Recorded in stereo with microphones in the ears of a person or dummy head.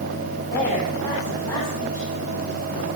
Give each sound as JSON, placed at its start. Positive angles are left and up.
{"t": 0.5, "sound": "a woman speaking", "side_deg": 20, "distance_m": 9.0}